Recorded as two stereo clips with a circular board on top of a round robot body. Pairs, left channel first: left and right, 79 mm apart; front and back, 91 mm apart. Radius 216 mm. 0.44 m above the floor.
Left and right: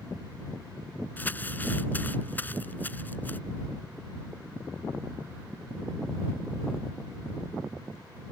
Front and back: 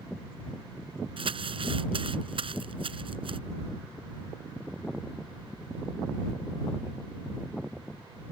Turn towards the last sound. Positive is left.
turn(degrees=160)